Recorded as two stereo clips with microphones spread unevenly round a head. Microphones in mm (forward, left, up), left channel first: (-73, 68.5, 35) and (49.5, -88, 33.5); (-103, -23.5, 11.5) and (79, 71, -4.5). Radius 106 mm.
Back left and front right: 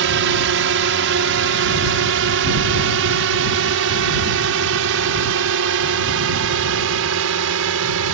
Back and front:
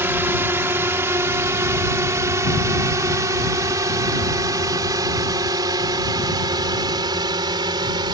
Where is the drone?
50° right; by 8.2 s 45° right.